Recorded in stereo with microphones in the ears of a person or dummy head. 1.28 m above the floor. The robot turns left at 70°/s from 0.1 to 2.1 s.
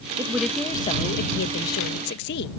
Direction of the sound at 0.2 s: 160° right.